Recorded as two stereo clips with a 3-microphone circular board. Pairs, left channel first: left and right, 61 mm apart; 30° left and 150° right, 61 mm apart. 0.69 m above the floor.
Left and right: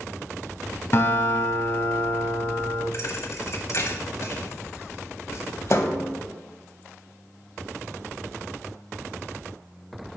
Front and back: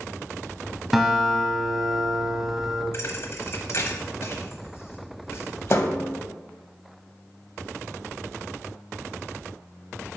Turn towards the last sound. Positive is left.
turn(degrees=65)